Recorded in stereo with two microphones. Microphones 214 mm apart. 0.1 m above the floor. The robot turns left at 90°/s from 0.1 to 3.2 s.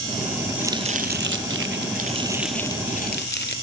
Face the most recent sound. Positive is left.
turn(degrees=115)